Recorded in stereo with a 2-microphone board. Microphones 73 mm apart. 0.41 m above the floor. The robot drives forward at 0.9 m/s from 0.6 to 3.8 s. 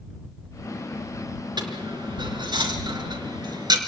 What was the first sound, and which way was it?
A dropped coin, 75° right (ahead or behind).